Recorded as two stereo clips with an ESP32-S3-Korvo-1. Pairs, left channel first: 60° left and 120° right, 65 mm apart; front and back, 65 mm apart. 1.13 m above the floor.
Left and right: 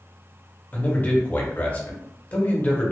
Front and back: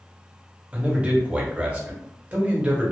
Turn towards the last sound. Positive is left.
turn(degrees=115)